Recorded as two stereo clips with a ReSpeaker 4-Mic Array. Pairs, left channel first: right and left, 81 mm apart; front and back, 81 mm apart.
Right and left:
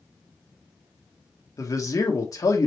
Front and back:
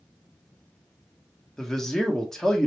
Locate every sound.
1.6 s a man speaking: 80° right, 1.4 m